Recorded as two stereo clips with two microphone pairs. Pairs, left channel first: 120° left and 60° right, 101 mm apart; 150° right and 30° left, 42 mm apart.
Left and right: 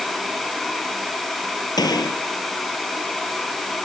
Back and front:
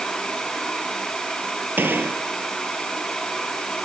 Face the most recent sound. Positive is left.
turn(degrees=70)